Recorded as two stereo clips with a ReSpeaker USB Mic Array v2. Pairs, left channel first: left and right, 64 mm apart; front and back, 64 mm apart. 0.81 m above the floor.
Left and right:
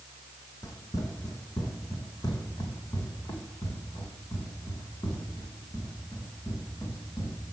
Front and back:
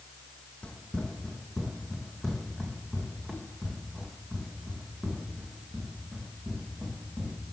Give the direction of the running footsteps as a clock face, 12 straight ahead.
10 o'clock.